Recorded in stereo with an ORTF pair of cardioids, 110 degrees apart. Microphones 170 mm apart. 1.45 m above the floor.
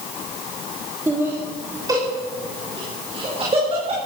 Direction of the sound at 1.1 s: 10° right.